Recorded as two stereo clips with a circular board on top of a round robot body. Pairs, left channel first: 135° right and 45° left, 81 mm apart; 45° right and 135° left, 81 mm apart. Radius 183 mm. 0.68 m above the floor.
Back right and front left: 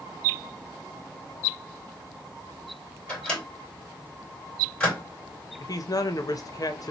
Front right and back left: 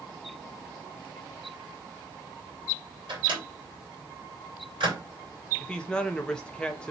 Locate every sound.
3.1 s a microwave: 150° left, 2.5 m
5.6 s a man speaking: 120° right, 0.8 m